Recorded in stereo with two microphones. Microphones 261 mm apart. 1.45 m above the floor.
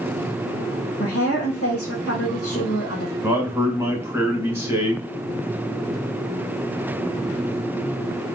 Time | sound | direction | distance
1.0 | a woman speaking | 60° left (ahead or behind) | 1.6 m
3.2 | a man speaking | 10° right (ahead or behind) | 1.5 m